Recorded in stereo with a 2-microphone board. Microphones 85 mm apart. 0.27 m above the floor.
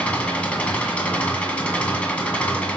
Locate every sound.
0.0 s an engine running: 15° left (ahead or behind), 1.8 m